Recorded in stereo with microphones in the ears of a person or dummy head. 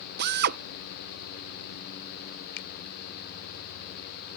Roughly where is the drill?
Right.